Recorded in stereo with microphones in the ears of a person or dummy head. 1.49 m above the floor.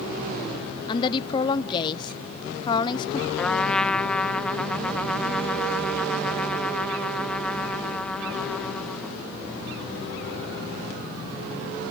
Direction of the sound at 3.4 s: 5° left (ahead or behind).